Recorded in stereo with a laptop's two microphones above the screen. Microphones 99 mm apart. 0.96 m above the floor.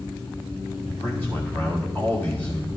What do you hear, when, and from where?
0.9 s a man speaking: 20° left (ahead or behind), 2.5 m